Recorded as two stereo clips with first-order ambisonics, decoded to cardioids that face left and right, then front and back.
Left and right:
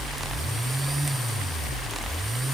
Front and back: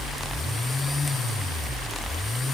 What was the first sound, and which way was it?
Only background noise.